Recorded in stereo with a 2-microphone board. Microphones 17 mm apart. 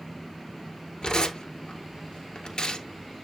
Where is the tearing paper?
55° left (ahead or behind), 1.5 m.